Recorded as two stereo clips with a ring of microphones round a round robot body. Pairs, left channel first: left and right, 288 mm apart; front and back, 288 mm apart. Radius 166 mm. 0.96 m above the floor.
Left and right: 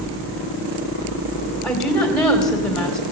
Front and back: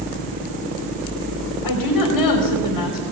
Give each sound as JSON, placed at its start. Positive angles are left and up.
{"t": 1.6, "sound": "a woman speaking", "azimuth_deg": 0, "distance_m": 3.5}